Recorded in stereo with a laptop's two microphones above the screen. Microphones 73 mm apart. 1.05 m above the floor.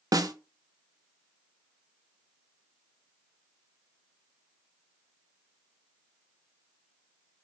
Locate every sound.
0.1 s a snare drum: 55° right (ahead or behind), 0.6 m